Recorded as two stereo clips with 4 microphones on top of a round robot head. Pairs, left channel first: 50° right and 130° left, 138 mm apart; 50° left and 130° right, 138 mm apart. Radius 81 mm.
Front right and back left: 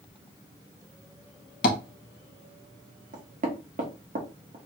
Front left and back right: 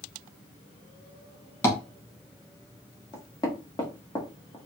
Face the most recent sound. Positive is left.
turn(degrees=110)